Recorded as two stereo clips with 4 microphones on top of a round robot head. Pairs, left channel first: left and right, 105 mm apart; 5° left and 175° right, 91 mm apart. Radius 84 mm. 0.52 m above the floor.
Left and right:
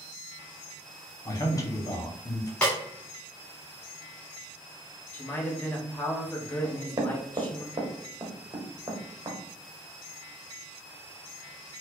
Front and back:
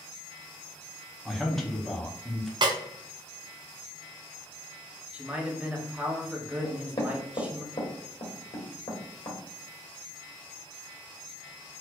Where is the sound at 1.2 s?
90° left, 1.1 m.